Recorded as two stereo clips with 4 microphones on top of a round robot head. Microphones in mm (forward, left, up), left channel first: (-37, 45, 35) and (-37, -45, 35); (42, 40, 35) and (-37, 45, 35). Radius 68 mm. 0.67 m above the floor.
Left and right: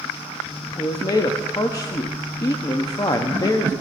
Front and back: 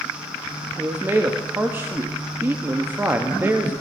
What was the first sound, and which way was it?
A man speaking, 120° left.